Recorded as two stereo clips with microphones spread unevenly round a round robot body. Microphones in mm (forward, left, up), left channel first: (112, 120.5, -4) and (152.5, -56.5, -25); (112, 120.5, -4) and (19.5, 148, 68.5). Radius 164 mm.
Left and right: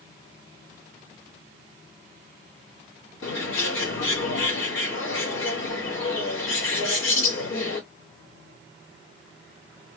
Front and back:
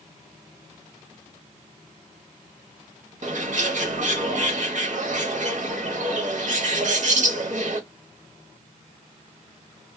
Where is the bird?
135° left, 1.7 m.